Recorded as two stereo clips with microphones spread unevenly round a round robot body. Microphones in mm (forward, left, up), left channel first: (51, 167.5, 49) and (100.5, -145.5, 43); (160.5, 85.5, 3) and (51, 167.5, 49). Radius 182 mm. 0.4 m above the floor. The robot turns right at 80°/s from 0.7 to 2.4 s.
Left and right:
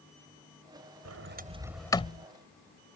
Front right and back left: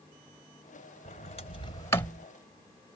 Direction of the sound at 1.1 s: 50° right.